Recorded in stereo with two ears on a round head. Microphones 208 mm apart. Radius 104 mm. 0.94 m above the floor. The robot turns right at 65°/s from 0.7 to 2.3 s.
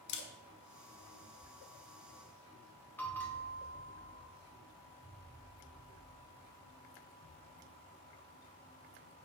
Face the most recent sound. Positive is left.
turn(degrees=10)  # may be behind; listen again after turning